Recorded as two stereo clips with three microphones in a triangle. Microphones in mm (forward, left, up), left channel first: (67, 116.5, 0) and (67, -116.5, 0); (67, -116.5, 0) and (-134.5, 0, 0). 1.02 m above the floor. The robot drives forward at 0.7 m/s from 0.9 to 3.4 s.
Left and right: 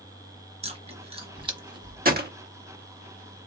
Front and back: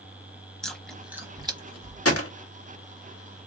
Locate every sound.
0.6 s chewing: 115° right, 0.9 m; by 2.1 s 160° right, 1.4 m
2.0 s a gunshot: 40° right, 1.1 m; by 2.3 s 45° right, 1.0 m